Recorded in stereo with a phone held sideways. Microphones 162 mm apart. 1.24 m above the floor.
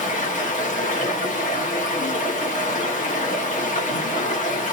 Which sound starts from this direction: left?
Running water, at 0.0 s.